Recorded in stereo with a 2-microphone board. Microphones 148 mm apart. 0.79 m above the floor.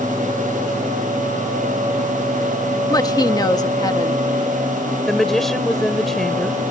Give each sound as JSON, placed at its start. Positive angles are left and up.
{"t": 2.9, "sound": "a woman speaking", "side_deg": 25}
{"t": 5.1, "sound": "a woman speaking", "side_deg": 0}